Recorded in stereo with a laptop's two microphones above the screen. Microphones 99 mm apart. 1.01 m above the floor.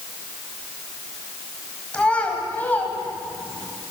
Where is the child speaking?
10° left (ahead or behind), 5 m; by 3.7 s 25° left (ahead or behind), 6 m.